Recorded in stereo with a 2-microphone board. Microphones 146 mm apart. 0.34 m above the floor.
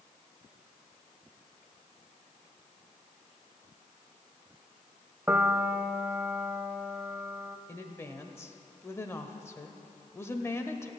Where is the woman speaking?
20° left (ahead or behind), 1.0 m.